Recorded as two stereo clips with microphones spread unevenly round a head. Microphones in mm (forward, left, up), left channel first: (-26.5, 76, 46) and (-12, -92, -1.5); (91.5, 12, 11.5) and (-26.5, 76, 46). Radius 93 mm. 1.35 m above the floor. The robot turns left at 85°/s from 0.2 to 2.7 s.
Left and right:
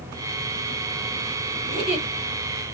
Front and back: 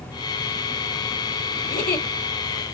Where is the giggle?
Straight ahead, 2.5 m; by 2.1 s 35° right, 2.5 m.